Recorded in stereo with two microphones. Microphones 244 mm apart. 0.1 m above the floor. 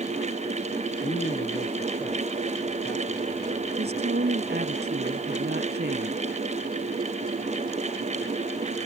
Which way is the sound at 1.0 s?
30° left (ahead or behind).